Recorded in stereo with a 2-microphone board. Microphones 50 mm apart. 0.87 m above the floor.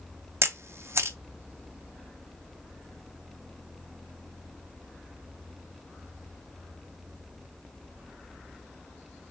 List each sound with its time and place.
0.4 s a camera shutter: 65° right (ahead or behind), 0.5 m